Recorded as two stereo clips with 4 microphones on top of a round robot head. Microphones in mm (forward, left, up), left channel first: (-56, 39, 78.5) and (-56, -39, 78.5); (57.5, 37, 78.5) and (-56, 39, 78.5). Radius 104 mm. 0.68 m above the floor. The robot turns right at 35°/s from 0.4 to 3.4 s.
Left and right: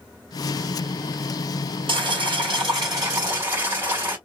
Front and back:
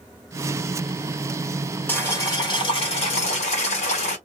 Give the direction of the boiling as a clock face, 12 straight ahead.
3 o'clock.